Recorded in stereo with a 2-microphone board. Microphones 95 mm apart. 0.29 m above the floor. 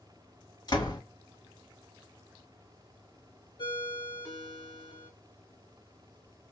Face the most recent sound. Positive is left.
turn(degrees=50)  # may be behind; listen again after turning